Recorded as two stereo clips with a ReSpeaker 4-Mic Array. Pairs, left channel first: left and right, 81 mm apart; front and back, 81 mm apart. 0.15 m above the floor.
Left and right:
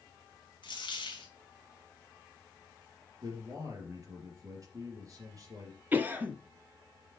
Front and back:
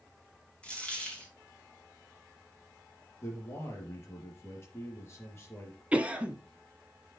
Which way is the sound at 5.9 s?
125° right.